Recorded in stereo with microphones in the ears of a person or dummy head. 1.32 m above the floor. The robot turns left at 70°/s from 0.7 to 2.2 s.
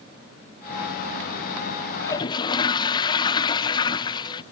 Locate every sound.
2.0 s a toilet flushing: 10° left (ahead or behind); by 4.4 s 20° left (ahead or behind)